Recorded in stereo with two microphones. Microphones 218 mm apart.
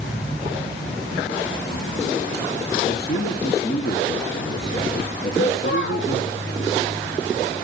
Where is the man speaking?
50° left (ahead or behind), 2.5 m.